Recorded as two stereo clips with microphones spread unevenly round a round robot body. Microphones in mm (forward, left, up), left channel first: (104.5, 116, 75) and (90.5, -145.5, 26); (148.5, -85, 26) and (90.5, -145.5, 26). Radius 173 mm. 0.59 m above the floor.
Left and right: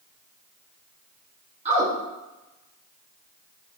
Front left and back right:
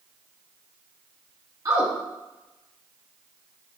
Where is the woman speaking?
130° right, 0.9 m.